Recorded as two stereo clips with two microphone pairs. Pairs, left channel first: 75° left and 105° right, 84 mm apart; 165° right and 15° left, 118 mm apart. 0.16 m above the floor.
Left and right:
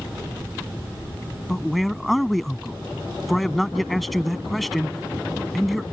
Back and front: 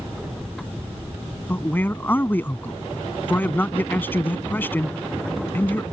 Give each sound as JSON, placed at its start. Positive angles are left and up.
{"t": 1.5, "sound": "a man speaking", "azimuth_deg": 165}